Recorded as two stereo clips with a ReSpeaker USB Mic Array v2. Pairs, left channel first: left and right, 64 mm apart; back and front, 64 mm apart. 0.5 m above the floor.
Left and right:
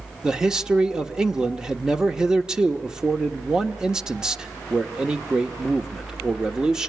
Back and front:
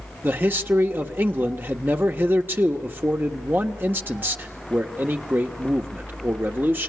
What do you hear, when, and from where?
0.2 s a man speaking: 20° right, 1.4 m